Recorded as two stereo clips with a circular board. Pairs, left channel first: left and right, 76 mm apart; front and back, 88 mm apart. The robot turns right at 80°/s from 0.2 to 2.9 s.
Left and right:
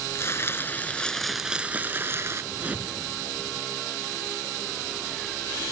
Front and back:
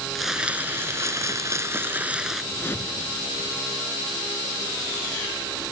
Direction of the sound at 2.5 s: 50° right.